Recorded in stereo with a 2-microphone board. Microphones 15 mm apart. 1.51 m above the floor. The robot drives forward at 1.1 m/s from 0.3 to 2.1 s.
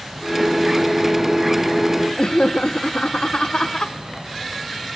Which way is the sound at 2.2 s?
80° left.